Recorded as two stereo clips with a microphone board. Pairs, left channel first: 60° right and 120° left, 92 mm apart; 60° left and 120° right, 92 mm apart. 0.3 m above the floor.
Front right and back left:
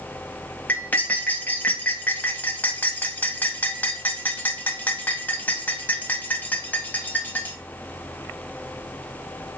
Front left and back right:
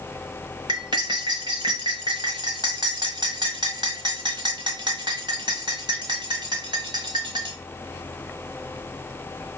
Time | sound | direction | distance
0.7 | cutlery clinking | 125° right | 1.2 m